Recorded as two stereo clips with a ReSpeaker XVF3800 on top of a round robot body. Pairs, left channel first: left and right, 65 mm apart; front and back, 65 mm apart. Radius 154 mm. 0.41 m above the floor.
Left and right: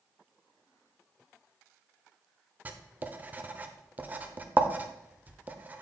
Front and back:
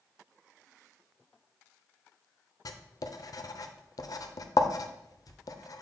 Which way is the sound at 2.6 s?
25° right.